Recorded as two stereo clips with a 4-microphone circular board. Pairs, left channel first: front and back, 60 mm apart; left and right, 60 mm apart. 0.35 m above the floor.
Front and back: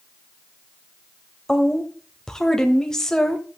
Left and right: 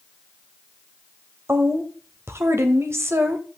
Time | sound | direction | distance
1.5 | a woman speaking | 75° right | 1.3 m